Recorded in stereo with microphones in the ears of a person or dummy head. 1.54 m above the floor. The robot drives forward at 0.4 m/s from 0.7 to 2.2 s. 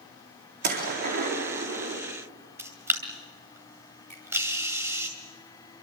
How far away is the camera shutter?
About 2.5 m.